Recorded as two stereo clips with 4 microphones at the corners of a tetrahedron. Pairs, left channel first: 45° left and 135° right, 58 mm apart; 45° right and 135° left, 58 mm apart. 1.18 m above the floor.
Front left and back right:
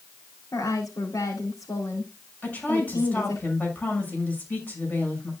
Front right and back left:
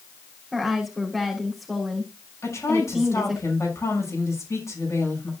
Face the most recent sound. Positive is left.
turn(degrees=-15)